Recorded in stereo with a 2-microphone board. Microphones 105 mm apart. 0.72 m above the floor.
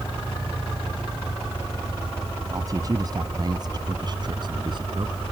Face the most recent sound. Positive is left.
turn(degrees=-50)  # may be behind; listen again after turning